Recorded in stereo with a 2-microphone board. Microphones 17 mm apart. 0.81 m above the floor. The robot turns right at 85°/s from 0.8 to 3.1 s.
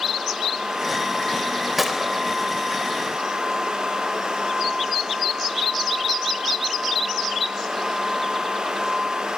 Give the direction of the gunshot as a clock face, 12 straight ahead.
6 o'clock.